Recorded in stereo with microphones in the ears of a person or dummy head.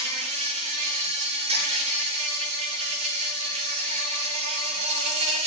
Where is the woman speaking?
I don't hear a woman speaking.